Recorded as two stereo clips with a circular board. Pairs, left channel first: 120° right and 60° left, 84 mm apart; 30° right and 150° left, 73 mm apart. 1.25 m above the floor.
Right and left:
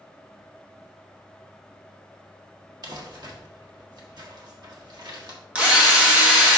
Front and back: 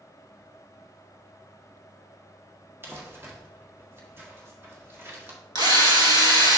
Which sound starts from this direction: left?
Crumpling, at 2.8 s.